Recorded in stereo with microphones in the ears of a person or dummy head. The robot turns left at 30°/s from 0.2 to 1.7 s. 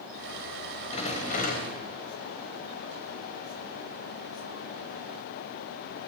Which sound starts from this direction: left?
A rattle, at 0.9 s.